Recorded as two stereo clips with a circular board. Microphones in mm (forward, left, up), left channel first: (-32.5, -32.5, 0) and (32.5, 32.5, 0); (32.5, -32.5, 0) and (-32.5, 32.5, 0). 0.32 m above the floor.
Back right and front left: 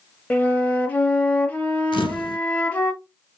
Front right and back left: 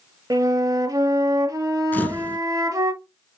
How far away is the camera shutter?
About 0.6 m.